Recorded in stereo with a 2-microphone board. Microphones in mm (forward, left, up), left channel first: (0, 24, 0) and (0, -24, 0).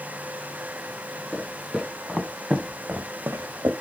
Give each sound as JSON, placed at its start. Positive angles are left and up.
{"t": 1.3, "sound": "footsteps", "side_deg": 5, "distance_m": 3.0}